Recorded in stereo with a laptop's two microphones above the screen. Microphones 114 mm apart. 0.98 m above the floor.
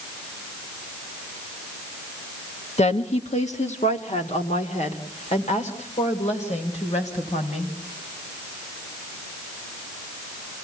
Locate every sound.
2.8 s a woman speaking: 70° left (ahead or behind), 1.1 m; by 7.7 s 85° left, 5 m